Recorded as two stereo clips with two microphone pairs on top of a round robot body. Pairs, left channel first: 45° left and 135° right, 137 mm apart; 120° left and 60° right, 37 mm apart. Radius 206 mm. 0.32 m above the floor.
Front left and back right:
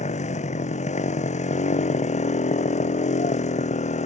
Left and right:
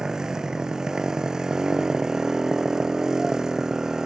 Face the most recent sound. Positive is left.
turn(degrees=15)